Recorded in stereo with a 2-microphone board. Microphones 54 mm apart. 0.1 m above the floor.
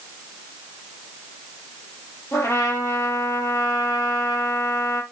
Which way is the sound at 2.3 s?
65° left (ahead or behind).